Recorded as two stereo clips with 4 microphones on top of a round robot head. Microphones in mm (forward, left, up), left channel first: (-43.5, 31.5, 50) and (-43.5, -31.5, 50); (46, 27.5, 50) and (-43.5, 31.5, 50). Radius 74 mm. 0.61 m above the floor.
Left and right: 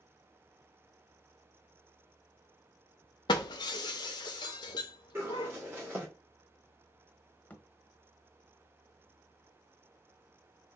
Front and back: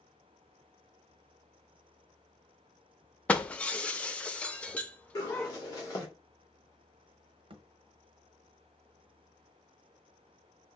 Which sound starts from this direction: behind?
A thud, at 7.5 s.